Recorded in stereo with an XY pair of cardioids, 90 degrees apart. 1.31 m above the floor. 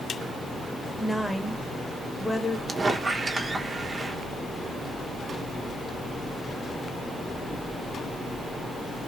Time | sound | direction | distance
1.0 | a woman speaking | 5° left | 1.4 m
2.7 | a squeak | 35° right | 0.8 m